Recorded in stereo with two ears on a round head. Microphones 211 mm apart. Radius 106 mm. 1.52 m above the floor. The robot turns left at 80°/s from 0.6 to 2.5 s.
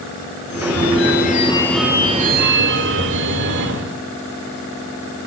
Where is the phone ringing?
95° left, 2.5 m; by 4.0 s 60° right, 2.5 m.